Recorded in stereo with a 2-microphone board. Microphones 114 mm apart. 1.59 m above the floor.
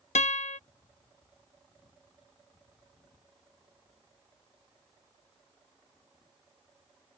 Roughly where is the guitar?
Left.